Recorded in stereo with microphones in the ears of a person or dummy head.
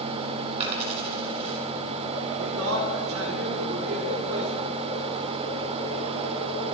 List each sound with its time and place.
0.6 s a dropped coin: 35° right (ahead or behind), 2.5 m
2.4 s a man speaking: 85° right, 5.5 m